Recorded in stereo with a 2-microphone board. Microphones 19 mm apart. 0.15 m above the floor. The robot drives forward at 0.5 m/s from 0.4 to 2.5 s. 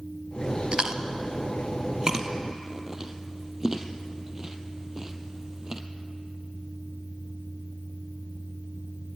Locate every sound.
0.7 s chewing: 55° right (ahead or behind), 1.1 m; by 5.8 s 30° right (ahead or behind), 1.7 m